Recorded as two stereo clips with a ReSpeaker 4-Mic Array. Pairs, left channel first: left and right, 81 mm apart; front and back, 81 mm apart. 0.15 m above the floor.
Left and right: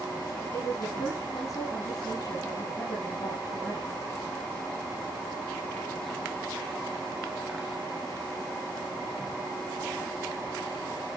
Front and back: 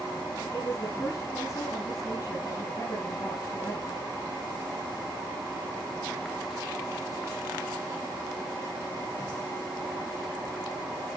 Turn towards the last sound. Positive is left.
turn(degrees=55)